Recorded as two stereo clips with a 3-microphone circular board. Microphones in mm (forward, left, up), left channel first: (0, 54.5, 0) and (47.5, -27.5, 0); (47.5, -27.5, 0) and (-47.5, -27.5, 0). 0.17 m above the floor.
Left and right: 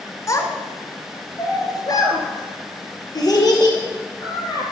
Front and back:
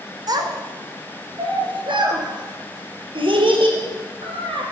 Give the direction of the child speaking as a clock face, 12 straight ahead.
7 o'clock.